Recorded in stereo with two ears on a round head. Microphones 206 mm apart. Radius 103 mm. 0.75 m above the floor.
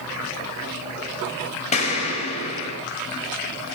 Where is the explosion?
30° left (ahead or behind), 5.5 m.